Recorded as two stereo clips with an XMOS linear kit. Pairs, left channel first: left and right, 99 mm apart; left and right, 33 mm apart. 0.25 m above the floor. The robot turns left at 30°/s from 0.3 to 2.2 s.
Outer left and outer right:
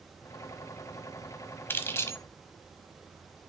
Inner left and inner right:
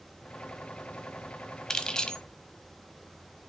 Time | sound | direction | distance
1.7 | keys jangling | 20° left (ahead or behind) | 1.1 m